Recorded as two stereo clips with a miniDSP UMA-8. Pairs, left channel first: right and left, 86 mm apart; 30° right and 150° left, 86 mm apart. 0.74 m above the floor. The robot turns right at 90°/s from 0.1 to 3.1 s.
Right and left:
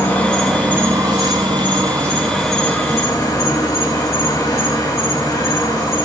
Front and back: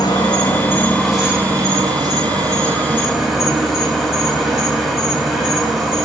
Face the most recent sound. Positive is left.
turn(degrees=-125)